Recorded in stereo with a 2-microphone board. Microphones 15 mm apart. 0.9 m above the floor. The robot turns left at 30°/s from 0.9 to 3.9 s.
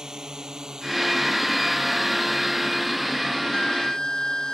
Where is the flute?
55° left (ahead or behind); by 4.5 s 40° left (ahead or behind).